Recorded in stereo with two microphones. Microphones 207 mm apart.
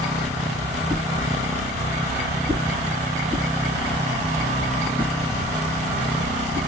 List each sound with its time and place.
0.9 s a whoosh: 5° left (ahead or behind), 1.7 m